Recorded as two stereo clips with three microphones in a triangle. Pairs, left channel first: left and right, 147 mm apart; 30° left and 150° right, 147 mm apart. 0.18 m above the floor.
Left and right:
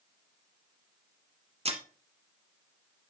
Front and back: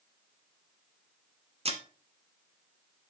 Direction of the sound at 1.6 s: 120° right.